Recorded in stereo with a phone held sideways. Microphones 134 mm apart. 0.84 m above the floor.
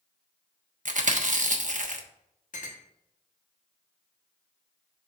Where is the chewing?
70° right (ahead or behind), 1.0 m.